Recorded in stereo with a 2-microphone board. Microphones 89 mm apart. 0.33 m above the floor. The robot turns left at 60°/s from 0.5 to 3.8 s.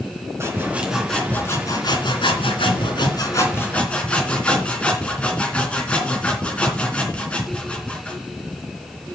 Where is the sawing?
150° right, 3 m; by 8.2 s 15° left, 3 m.